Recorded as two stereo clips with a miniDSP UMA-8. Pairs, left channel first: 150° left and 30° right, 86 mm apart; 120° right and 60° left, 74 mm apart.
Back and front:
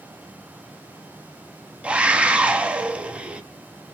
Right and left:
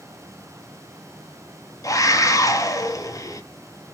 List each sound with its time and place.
1.8 s a scream: 105° right, 0.8 m